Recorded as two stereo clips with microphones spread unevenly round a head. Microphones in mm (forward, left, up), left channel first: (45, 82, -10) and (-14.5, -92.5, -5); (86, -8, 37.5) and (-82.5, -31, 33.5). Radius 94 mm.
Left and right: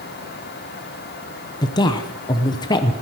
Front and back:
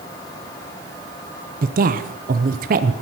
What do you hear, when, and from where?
1.6 s a woman speaking: 140° left, 0.7 m